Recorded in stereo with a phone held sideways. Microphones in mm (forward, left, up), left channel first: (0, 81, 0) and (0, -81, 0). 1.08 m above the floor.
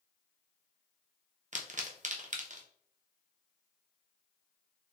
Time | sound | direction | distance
1.5 | a pop | 50° right (ahead or behind) | 0.7 m